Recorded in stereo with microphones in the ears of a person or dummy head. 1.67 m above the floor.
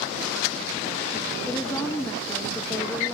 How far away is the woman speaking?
About 0.8 m.